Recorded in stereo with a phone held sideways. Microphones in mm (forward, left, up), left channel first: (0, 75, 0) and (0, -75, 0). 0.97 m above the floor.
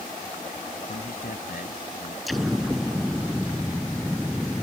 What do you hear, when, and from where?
0.9 s a man speaking: 70° left (ahead or behind); by 2.2 s 75° left (ahead or behind)
2.3 s an explosion: centre (ahead or behind)